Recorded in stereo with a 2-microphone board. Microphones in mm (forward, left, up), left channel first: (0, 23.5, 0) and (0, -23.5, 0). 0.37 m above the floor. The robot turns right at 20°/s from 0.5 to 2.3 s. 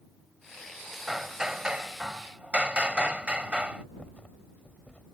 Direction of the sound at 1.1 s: 5° right (ahead or behind).